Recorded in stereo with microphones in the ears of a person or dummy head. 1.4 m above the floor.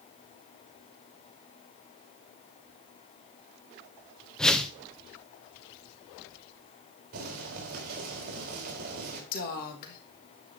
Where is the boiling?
55° right (ahead or behind), 3.5 m.